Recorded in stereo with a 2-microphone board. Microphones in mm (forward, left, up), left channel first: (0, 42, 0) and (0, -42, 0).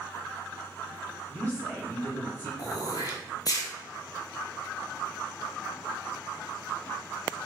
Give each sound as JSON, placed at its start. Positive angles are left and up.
{"t": 1.3, "sound": "a woman speaking", "side_deg": 25, "distance_m": 1.7}
{"t": 2.6, "sound": "throat clearing", "side_deg": 50, "distance_m": 0.8}